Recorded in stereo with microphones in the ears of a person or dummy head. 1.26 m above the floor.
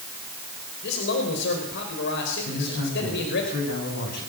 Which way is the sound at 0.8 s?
65° left (ahead or behind).